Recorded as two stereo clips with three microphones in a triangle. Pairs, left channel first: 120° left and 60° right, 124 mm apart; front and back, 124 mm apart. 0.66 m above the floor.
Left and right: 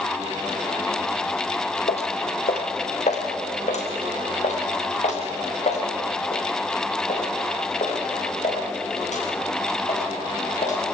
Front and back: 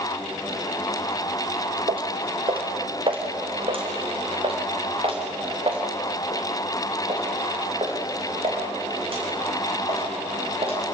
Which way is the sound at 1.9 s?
140° left.